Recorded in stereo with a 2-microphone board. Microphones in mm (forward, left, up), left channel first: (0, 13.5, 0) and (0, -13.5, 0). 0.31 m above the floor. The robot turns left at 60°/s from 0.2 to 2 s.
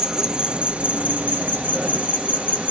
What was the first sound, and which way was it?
An insect, 15° right.